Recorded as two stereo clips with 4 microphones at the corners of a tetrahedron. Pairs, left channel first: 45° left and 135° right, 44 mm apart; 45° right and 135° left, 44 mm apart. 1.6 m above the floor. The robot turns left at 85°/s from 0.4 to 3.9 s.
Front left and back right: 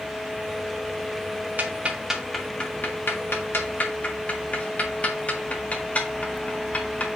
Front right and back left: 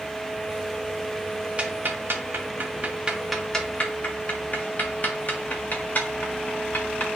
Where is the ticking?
170° right, 1.2 m; by 7.1 s 5° right, 1.2 m.